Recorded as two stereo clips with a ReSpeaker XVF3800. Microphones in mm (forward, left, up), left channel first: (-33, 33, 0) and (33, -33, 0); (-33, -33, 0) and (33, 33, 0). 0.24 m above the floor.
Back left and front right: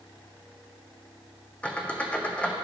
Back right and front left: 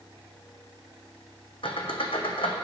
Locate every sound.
1.6 s a squeak: 150° right, 1.0 m